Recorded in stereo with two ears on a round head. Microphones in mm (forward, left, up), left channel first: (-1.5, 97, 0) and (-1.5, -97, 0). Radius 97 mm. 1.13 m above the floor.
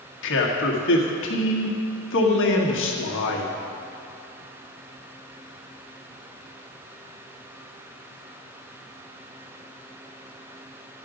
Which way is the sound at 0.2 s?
60° left (ahead or behind).